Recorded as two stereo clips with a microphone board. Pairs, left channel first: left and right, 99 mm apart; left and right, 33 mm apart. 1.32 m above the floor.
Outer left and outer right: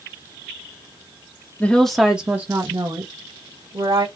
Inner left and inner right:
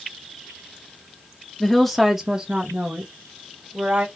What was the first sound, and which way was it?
A woman speaking, 15° left (ahead or behind).